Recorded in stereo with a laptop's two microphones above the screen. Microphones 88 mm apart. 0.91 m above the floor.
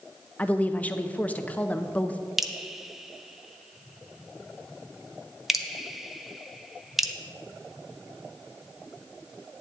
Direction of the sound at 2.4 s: Centre (ahead or behind).